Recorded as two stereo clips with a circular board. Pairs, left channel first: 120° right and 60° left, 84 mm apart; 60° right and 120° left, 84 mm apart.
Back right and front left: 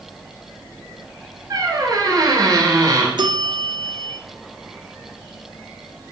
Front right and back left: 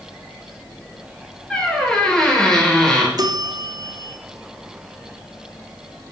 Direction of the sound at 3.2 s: 80° left.